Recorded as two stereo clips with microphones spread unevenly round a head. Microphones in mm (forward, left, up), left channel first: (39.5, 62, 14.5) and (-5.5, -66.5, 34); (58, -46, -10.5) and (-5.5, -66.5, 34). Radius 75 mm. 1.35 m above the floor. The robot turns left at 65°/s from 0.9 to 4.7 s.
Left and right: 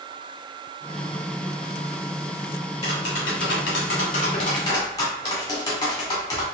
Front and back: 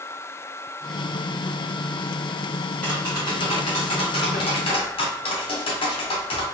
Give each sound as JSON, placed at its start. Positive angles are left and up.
{"t": 2.8, "sound": "tapping", "azimuth_deg": 120, "distance_m": 1.6}